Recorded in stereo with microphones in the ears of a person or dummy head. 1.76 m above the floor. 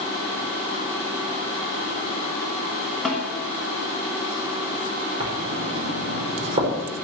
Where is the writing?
35° right (ahead or behind), 5 m.